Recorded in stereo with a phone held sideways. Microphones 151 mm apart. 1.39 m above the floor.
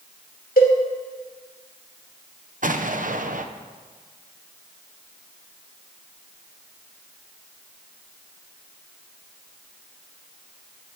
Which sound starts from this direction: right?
An explosion, at 2.6 s.